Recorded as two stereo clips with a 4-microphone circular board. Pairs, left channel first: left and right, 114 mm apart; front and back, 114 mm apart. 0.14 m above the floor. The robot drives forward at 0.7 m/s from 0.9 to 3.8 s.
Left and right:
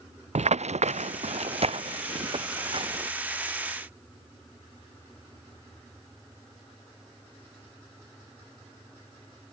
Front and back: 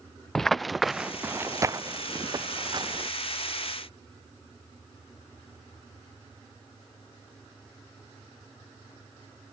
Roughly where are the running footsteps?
Right.